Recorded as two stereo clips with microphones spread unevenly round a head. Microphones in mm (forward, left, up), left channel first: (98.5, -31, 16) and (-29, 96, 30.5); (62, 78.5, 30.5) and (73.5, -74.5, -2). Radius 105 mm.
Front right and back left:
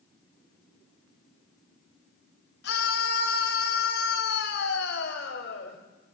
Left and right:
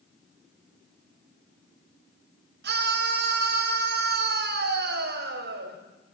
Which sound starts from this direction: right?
A scream, at 2.6 s.